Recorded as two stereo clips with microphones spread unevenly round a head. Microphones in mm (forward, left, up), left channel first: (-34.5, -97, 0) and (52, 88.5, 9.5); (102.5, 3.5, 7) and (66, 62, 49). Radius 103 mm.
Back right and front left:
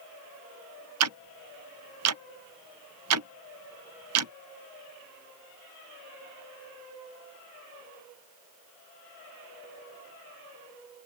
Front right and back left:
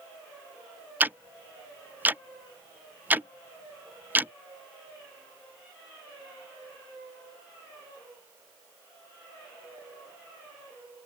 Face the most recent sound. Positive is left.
turn(degrees=65)